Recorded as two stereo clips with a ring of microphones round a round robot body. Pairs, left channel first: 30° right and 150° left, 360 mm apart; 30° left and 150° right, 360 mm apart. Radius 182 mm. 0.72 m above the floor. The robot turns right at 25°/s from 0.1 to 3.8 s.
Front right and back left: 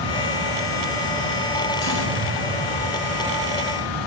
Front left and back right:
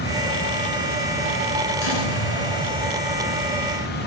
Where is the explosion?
15° left, 3 m; by 3.5 s 60° left, 3 m.